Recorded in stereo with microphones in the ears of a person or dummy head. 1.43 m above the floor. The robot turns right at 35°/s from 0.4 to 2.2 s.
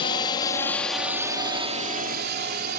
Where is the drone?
30° left (ahead or behind); by 2.8 s 50° right (ahead or behind).